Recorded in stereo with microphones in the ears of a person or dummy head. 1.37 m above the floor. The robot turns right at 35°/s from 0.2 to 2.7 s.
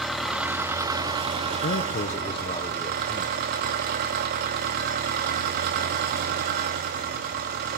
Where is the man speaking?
125° left, 1.1 m; by 3.4 s 165° left, 1.1 m.